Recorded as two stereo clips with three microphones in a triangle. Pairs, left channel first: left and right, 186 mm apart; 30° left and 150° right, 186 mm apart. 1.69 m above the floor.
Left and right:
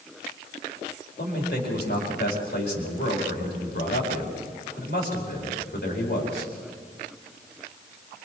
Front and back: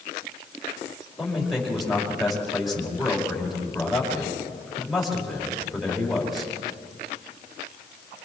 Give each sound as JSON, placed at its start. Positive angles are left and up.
{"t": 1.2, "sound": "a man speaking", "azimuth_deg": 120, "distance_m": 4.5}